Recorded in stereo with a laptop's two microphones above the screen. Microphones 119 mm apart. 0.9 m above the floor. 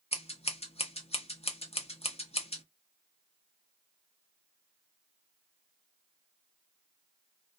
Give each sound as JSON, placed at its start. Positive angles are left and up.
{"t": 0.1, "sound": "scissors", "side_deg": 55, "distance_m": 0.8}